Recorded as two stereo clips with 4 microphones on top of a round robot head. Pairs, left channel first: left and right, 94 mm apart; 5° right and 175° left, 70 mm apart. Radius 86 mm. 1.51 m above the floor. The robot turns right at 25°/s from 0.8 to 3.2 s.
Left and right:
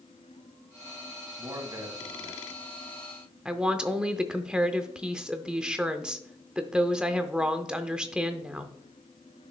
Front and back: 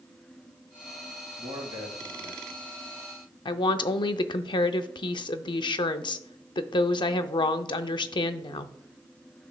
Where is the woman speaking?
10° right, 0.5 m.